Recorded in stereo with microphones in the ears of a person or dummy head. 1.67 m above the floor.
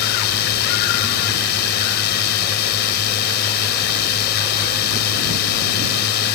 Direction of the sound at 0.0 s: 60° left (ahead or behind).